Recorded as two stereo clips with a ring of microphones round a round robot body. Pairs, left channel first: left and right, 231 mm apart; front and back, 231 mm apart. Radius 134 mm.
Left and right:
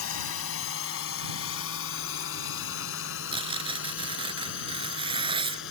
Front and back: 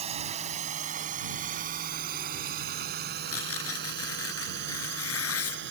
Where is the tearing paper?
20° right.